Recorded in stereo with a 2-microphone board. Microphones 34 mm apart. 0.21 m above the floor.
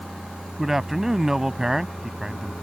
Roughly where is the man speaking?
Centre.